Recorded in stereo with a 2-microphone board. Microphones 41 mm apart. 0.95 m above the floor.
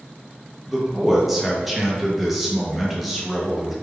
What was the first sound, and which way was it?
A man speaking, 5° right (ahead or behind).